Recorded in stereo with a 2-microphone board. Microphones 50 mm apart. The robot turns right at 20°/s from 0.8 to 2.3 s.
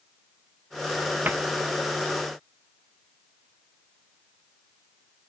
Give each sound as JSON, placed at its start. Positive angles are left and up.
{"t": 1.2, "sound": "a cupboard door", "side_deg": -40, "distance_m": 0.6}